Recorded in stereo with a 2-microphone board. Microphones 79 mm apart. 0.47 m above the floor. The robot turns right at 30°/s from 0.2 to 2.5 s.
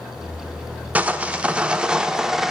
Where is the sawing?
20° right (ahead or behind), 0.7 m; by 2.5 s 5° right (ahead or behind), 0.7 m.